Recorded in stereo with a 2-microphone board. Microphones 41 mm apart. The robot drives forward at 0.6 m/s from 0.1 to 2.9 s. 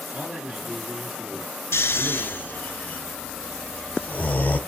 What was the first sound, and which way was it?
A man speaking, 30° right (ahead or behind).